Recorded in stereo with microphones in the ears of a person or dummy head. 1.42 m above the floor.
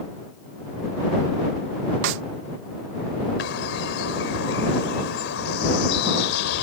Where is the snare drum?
75° right (ahead or behind).